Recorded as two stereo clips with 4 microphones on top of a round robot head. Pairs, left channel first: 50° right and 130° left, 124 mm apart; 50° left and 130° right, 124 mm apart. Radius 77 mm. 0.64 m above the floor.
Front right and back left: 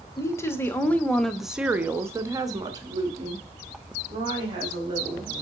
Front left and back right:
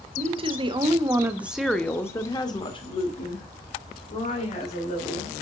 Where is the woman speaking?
110° right, 1.3 m; by 5.3 s 80° left, 3 m.